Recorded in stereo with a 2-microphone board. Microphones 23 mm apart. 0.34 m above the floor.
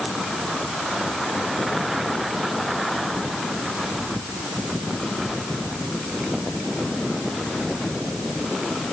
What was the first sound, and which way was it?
Only background noise.